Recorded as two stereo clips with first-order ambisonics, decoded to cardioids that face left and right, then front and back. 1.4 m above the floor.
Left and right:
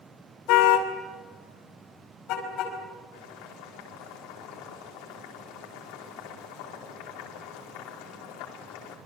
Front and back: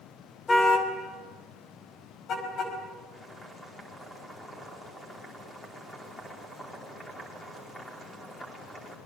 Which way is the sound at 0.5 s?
75° left.